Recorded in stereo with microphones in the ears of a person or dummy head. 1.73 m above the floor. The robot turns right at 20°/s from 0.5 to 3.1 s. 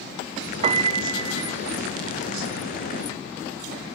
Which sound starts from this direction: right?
A piano, at 0.6 s.